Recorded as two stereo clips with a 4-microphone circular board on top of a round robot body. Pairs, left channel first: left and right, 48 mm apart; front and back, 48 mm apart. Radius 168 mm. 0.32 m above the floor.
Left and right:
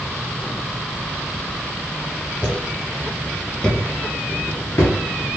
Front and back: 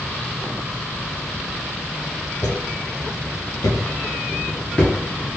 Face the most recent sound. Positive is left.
turn(degrees=90)